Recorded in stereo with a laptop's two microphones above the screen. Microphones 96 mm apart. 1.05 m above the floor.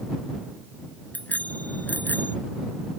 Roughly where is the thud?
I don't hear a thud.